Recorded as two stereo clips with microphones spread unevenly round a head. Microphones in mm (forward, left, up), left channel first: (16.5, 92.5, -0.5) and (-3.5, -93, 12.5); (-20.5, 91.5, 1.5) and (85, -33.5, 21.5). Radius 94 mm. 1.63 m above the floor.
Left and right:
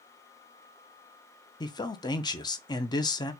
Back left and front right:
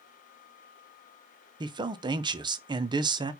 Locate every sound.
1.6 s a man speaking: 15° left, 0.5 m